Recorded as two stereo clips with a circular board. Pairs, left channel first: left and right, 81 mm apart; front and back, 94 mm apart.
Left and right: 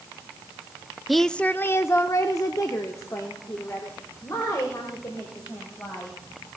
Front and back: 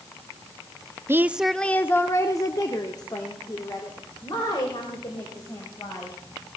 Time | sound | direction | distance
1.1 | a woman speaking | straight behind | 0.5 m